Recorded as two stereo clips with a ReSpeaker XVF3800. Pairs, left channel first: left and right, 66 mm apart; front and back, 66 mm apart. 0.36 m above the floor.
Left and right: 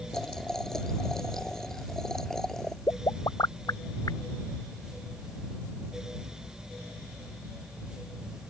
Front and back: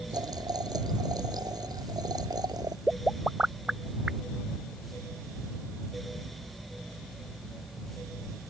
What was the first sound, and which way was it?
Boiling, 175° left.